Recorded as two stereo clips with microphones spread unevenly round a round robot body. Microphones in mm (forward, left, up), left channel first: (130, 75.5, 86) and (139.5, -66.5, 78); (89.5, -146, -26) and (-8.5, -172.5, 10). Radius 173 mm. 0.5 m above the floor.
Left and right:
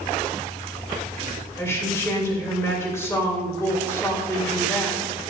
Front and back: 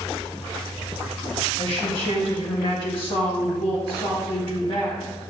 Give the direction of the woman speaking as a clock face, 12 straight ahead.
11 o'clock.